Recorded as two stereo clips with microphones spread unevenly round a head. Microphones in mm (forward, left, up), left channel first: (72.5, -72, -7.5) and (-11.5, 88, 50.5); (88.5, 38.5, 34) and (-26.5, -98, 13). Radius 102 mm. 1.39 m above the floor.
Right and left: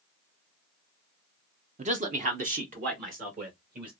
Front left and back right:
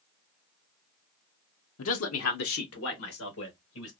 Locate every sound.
1.8 s a man speaking: 65° left, 0.6 m; by 3.9 s 75° left, 2.5 m